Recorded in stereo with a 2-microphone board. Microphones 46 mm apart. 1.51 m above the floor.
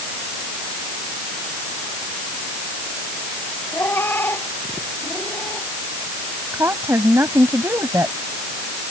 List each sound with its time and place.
3.7 s a cat meowing: 55° left (ahead or behind)
6.5 s a woman speaking: 80° right